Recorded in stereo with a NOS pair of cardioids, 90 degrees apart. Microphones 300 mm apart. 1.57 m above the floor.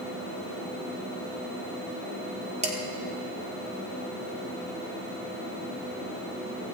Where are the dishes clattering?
25° right, 2 m.